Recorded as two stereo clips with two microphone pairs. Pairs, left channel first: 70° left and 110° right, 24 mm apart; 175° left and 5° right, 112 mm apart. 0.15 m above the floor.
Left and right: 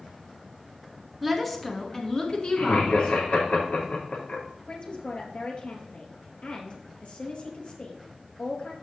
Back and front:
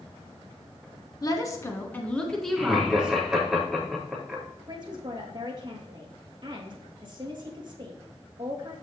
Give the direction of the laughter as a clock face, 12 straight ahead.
9 o'clock.